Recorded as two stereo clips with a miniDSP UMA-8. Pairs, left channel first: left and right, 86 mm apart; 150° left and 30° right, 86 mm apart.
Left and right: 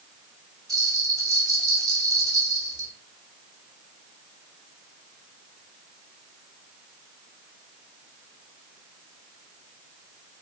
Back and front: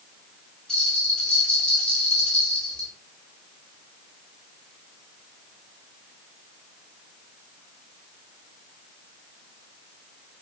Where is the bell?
130° right, 0.8 m.